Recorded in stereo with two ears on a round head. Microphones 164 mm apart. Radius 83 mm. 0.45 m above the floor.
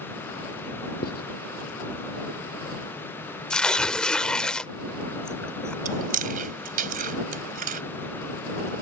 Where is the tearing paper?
5° left (ahead or behind).